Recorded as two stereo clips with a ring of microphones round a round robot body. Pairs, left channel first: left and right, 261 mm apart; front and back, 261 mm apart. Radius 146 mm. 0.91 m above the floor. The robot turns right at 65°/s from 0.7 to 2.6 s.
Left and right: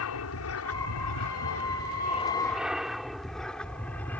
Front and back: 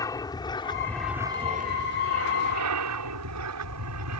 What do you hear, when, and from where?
0.0 s an aircraft: 75° left; by 4.2 s 175° left